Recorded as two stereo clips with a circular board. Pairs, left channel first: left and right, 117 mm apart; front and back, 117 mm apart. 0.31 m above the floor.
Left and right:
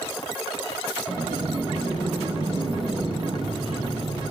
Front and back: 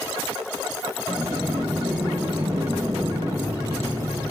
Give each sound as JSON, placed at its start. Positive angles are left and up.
{"t": 1.1, "sound": "a sliding door", "azimuth_deg": -120, "distance_m": 4.5}